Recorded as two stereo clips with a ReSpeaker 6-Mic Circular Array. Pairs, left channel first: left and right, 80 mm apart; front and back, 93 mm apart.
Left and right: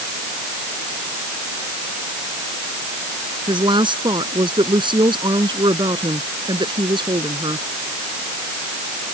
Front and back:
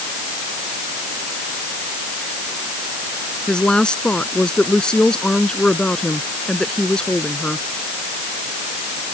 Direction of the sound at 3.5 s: 80° right.